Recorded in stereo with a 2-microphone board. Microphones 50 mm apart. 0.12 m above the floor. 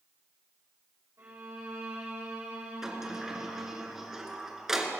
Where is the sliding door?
10° right (ahead or behind), 1.8 m.